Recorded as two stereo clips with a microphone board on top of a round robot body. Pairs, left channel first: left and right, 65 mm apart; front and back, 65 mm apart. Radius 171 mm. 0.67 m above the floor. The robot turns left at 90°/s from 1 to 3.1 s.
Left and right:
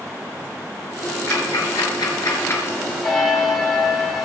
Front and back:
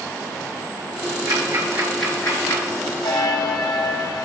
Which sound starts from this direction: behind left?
Ticking, at 1.3 s.